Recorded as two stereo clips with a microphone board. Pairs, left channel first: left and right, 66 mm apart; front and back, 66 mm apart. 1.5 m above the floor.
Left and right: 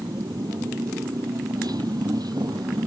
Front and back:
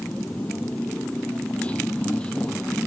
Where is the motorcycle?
70° right; by 2.9 s 75° right.